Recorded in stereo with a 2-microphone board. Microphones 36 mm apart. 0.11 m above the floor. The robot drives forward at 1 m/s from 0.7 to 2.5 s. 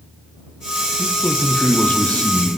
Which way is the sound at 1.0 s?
45° left (ahead or behind).